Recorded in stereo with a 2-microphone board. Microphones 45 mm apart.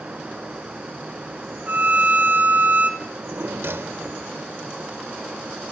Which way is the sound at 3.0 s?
60° right (ahead or behind).